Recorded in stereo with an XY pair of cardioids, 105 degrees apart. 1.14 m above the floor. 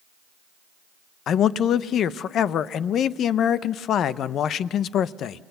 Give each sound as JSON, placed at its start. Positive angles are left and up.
{"t": 1.3, "sound": "a man speaking", "azimuth_deg": 65, "distance_m": 0.7}